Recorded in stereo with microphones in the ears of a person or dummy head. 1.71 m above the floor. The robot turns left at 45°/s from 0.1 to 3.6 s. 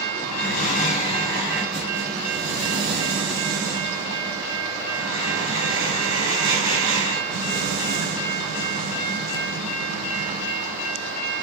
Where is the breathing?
65° left, 1.0 m; by 11.2 s 90° right, 1.0 m.